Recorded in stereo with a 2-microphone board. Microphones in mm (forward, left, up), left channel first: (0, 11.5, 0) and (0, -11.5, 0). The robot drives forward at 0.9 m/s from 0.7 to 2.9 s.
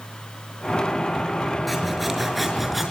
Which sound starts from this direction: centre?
Sawing, at 1.7 s.